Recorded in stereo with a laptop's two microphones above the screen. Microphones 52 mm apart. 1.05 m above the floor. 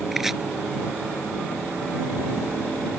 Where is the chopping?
5° right (ahead or behind).